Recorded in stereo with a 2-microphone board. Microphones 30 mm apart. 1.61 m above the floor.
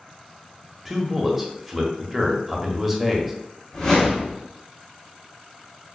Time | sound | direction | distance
0.8 | a man speaking | 5° right (ahead or behind) | 0.7 m
3.7 | a whoosh | 20° left (ahead or behind) | 1.1 m